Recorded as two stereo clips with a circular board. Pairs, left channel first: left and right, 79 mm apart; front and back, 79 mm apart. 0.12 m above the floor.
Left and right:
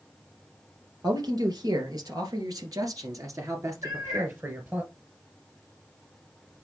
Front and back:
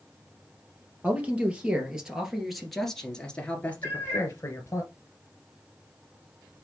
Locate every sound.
1.0 s a man speaking: 110° right, 2.5 m; by 4.8 s 35° right, 2 m
3.8 s a cat meowing: 60° right, 3 m